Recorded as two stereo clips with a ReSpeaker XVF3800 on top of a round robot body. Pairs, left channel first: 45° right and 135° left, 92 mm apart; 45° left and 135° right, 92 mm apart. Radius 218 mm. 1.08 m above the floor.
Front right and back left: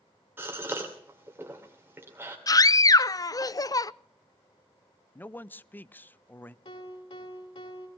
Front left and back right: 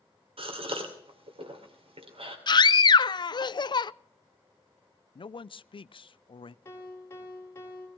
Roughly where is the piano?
Ahead.